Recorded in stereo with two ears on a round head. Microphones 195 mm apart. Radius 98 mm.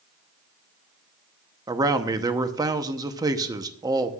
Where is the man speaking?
15° right (ahead or behind), 0.9 m.